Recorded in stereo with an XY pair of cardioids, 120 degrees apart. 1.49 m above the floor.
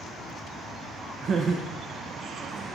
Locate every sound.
1.2 s laughter: 50° right, 0.7 m; by 2.8 s 30° right, 1.6 m